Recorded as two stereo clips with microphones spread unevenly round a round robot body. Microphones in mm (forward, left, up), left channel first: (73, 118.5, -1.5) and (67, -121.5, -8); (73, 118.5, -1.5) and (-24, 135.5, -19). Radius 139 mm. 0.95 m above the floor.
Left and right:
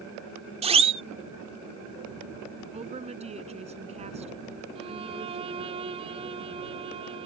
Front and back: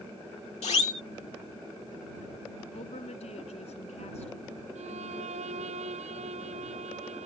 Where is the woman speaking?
30° right.